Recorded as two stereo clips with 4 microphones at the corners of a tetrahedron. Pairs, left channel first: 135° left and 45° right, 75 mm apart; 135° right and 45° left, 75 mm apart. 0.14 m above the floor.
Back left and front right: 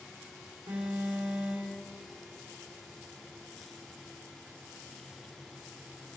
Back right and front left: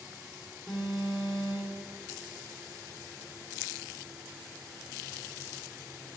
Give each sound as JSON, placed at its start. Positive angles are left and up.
{"t": 0.7, "sound": "an alarm", "azimuth_deg": -45, "distance_m": 3.5}